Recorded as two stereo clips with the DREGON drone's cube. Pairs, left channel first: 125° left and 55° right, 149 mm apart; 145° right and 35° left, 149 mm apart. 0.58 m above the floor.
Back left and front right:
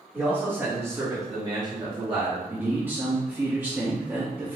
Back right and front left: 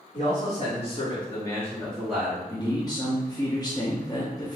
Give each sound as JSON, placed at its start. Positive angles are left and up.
{"t": 0.1, "sound": "a man speaking", "azimuth_deg": -135, "distance_m": 1.6}
{"t": 2.5, "sound": "a man speaking", "azimuth_deg": -120, "distance_m": 0.6}